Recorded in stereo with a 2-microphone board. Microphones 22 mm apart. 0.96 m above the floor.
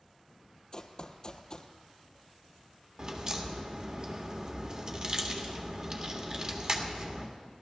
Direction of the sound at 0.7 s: 40° left (ahead or behind).